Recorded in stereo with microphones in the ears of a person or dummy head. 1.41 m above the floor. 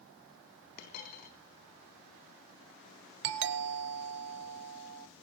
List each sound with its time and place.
0.8 s a dropped coin: 50° left (ahead or behind), 3.5 m
3.2 s a doorbell: 60° right (ahead or behind), 1.3 m